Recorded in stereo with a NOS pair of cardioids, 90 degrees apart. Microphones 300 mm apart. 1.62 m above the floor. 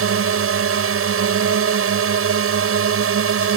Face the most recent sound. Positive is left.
turn(degrees=-50)